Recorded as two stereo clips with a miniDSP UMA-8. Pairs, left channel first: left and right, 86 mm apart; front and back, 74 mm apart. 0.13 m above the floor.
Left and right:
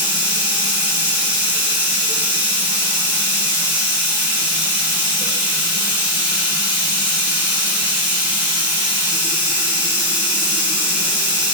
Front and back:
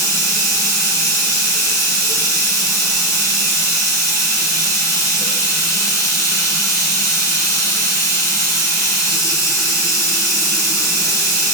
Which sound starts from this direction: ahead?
Running water, at 0.0 s.